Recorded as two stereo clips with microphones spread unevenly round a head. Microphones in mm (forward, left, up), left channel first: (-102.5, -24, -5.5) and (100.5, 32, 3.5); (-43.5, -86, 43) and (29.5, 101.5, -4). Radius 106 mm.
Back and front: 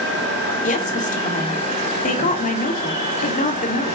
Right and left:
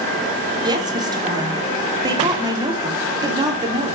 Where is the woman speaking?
140° left, 3 m.